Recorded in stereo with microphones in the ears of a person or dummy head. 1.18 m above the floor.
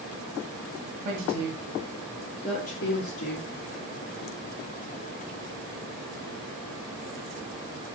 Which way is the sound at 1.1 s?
45° right (ahead or behind).